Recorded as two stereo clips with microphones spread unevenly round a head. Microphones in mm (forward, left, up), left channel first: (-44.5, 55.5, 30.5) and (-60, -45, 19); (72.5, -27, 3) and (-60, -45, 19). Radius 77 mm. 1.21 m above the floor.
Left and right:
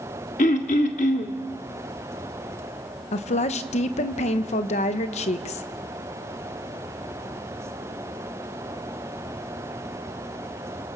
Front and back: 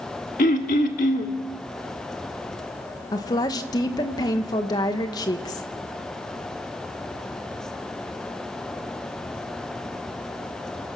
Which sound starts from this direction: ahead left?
Throat clearing, at 0.4 s.